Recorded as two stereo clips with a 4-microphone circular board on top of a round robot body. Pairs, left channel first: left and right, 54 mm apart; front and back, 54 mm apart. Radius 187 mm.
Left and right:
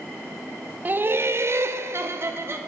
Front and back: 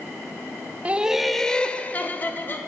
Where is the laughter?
130° right, 0.8 m; by 2.6 s 50° right, 1.5 m.